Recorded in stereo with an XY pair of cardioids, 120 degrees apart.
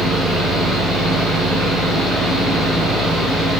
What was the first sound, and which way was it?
A fan, 50° right.